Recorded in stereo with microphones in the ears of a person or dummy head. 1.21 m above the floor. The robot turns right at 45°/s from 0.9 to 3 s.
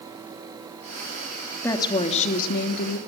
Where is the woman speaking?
10° left, 2.5 m; by 3.0 s 70° left, 2.5 m.